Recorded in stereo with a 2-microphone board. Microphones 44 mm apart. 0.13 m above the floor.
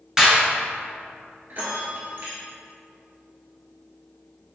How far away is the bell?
About 1.2 m.